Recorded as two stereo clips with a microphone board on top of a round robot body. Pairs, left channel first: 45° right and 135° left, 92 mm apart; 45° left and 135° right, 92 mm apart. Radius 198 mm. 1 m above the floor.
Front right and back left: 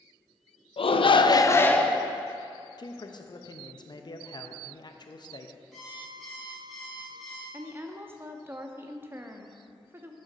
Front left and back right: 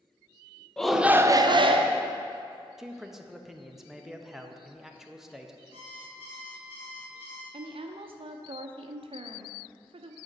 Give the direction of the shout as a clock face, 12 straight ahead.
1 o'clock.